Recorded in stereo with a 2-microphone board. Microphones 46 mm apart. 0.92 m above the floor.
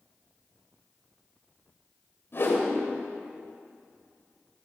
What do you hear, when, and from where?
2.3 s a whoosh: 50° left (ahead or behind), 3 m